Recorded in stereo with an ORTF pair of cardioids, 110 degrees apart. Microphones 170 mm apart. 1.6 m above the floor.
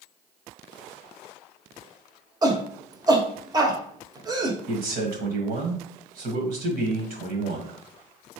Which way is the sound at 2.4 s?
25° right.